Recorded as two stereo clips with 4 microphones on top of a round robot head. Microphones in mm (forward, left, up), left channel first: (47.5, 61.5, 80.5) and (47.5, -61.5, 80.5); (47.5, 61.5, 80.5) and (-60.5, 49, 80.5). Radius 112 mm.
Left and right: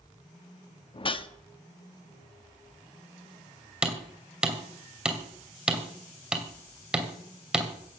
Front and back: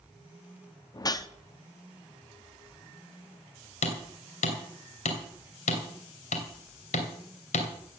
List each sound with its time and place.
0.9 s a whoosh: 55° left, 1.1 m
3.8 s hammering: 5° right, 2.5 m